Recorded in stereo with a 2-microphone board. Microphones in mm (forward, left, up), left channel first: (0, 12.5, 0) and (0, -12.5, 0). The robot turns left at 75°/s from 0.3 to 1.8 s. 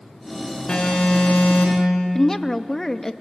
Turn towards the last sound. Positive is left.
turn(degrees=15)  # may be behind; listen again after turning